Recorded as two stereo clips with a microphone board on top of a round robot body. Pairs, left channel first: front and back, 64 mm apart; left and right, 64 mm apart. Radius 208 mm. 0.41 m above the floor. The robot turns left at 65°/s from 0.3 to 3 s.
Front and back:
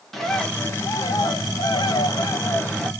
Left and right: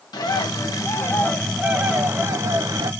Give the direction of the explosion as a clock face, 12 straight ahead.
No explosion in this recording.